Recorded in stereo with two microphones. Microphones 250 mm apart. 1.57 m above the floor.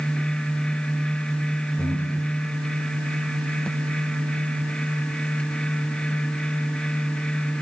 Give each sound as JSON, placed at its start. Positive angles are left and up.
{"t": 1.8, "sound": "breathing", "side_deg": 10, "distance_m": 3.5}